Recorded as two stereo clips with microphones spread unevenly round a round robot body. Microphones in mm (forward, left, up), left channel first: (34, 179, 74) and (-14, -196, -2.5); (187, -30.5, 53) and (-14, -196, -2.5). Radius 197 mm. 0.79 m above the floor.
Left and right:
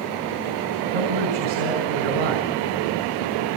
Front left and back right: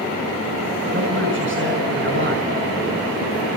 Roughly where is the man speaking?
Right.